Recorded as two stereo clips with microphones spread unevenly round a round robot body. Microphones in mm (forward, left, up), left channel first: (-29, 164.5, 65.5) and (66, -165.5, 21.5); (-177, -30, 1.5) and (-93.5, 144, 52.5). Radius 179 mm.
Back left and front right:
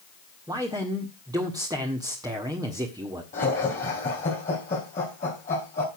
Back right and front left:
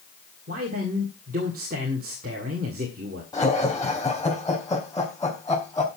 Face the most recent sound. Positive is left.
turn(degrees=175)